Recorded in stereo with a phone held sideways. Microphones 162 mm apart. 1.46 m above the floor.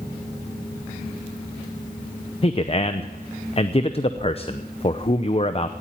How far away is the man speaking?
About 0.7 m.